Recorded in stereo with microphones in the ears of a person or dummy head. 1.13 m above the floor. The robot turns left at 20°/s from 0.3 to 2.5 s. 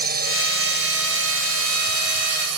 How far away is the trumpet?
I don't hear a trumpet.